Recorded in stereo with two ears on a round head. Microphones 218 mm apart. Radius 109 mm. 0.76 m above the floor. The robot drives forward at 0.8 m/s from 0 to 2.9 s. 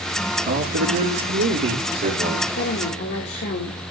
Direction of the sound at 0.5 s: 60° right (ahead or behind).